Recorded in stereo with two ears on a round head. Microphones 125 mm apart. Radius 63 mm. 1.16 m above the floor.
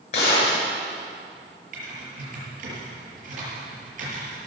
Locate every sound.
0.1 s a gunshot: 50° left (ahead or behind), 6.5 m
1.7 s typing on a keyboard: 60° right (ahead or behind), 7 m